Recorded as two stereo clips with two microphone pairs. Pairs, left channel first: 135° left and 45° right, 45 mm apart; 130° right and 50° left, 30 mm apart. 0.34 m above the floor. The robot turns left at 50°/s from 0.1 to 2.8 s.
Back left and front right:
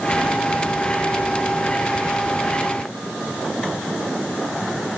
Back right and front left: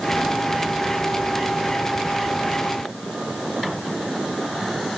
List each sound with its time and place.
Only background noise.